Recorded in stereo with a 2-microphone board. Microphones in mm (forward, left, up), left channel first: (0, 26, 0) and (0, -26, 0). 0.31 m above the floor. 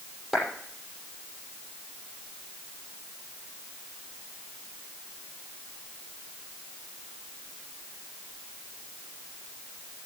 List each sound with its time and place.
0.3 s a clap: centre (ahead or behind), 6.5 m